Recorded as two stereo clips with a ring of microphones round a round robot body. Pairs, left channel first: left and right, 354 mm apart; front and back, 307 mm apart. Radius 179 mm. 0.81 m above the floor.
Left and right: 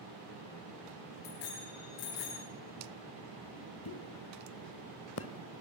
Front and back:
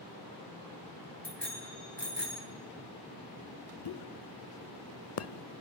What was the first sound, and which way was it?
A bicycle bell, 85° left.